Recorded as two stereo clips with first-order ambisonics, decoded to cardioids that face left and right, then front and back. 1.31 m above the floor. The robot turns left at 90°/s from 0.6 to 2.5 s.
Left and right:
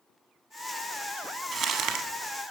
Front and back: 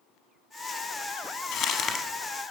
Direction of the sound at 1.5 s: 25° right.